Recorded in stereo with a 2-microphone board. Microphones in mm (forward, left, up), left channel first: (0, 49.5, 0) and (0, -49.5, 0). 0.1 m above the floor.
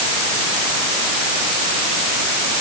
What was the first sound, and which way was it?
Only background noise.